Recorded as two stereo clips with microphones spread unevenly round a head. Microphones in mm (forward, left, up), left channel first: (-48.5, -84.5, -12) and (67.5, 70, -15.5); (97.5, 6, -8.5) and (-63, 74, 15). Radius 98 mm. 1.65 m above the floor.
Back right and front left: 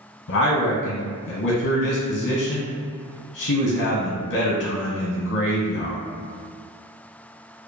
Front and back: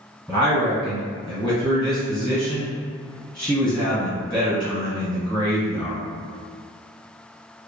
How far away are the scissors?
I don't hear scissors.